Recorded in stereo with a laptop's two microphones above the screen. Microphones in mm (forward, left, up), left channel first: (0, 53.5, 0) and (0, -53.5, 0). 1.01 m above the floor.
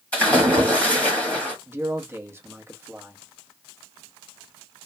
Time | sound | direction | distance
0.1 | a splash | 10° left (ahead or behind) | 1.2 m
1.7 | a man speaking | 25° right (ahead or behind) | 0.8 m